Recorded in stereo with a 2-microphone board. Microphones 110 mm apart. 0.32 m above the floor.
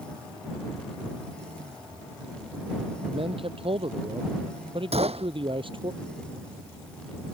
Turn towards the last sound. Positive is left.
turn(degrees=-70)  # may be behind; listen again after turning